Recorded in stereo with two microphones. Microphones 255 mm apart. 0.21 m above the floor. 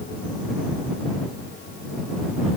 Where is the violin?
No violin in this recording.